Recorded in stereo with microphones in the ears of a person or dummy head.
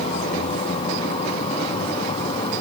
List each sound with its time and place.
0.0 s a vehicle: 35° left (ahead or behind); by 2.6 s 30° left (ahead or behind)